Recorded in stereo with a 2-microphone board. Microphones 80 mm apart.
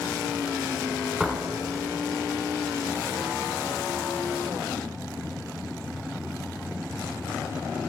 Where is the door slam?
Centre (ahead or behind), 1.9 m.